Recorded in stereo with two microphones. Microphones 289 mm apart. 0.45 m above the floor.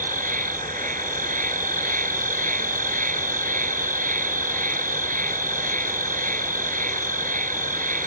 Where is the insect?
25° right (ahead or behind).